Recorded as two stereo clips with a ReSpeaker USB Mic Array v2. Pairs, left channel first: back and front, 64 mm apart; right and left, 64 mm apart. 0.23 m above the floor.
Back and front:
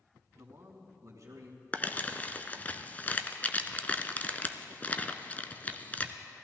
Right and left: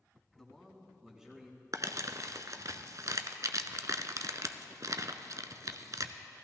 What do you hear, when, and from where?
0.4 s a man speaking: 10° right, 1.7 m; by 1.6 s 15° left, 2 m
1.7 s crumpling: 115° left, 0.6 m